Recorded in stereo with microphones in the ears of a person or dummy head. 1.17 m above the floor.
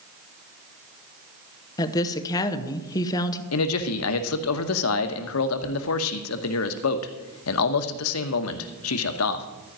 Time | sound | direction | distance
1.8 | a woman speaking | 20° left (ahead or behind) | 1.0 m
3.5 | a man speaking | 80° left | 1.0 m